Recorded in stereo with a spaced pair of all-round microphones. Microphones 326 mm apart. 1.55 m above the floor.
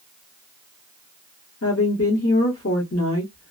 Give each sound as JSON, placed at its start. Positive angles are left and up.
{"t": 1.6, "sound": "a woman speaking", "side_deg": 45, "distance_m": 0.9}